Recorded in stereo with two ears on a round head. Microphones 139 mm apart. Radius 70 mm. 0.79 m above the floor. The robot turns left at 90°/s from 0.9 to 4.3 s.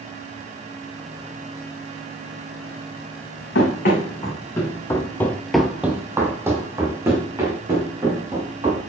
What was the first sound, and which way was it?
Running footsteps, 75° left (ahead or behind).